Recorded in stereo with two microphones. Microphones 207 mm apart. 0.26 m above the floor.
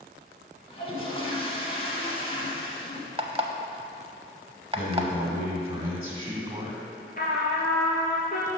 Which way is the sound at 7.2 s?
45° left (ahead or behind).